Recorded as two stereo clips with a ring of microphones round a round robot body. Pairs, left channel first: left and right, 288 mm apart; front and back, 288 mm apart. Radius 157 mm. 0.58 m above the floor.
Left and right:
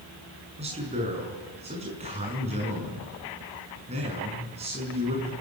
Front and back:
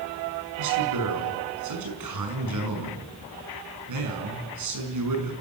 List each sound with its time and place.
0.6 s a man speaking: 160° right, 6 m